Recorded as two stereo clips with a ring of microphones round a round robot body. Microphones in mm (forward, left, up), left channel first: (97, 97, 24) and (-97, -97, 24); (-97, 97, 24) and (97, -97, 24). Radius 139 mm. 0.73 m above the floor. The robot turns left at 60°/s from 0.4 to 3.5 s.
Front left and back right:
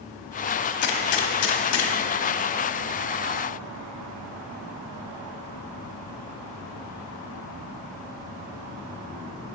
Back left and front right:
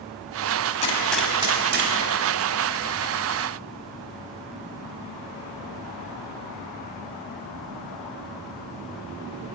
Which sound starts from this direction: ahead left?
A gunshot, at 0.8 s.